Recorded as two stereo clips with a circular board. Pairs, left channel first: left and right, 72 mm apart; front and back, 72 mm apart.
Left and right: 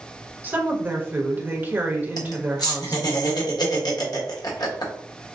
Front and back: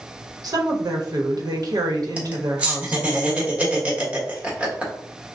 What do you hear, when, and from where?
0.4 s a woman speaking: 150° right, 1.1 m
2.2 s laughter: 110° left, 1.4 m